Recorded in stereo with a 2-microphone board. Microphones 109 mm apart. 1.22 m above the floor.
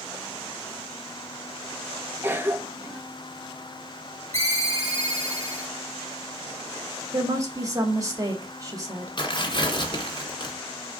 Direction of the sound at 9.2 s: 50° left (ahead or behind).